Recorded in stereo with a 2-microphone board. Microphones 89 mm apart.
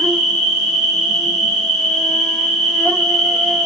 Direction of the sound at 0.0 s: 5° right (ahead or behind).